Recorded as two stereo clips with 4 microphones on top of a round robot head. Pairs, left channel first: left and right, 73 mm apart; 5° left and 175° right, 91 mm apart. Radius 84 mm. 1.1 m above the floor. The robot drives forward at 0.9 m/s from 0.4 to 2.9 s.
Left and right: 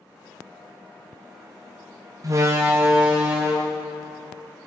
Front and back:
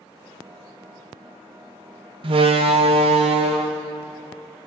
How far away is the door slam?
About 0.7 m.